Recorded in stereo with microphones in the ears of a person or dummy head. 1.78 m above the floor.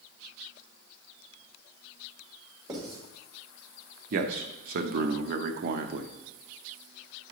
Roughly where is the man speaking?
Right.